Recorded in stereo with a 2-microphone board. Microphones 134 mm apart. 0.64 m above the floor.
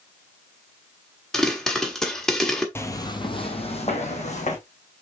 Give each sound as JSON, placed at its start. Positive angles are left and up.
{"t": 1.3, "sound": "a pop", "side_deg": 5, "distance_m": 1.4}
{"t": 2.8, "sound": "footsteps", "side_deg": 15, "distance_m": 0.8}